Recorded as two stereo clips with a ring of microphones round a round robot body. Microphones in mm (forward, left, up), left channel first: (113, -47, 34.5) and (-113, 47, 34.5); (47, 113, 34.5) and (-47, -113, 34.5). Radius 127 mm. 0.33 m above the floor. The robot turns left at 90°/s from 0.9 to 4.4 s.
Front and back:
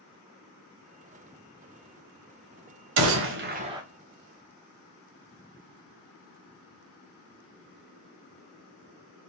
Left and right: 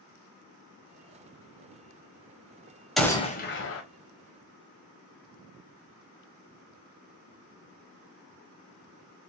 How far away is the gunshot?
About 1.1 m.